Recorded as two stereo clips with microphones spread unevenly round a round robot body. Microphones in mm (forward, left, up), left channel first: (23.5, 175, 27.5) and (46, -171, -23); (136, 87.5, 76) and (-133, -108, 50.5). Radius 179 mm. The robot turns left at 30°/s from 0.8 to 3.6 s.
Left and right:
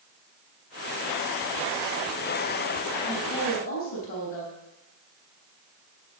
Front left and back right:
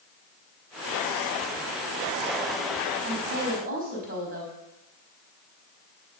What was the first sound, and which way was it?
A woman speaking, 165° left.